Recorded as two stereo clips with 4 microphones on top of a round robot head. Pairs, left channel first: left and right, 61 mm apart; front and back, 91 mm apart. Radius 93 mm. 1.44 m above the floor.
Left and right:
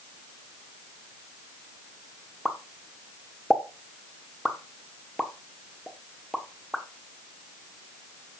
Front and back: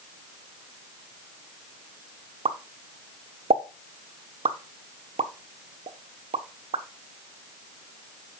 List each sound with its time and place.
2.5 s a pop: straight behind, 1.2 m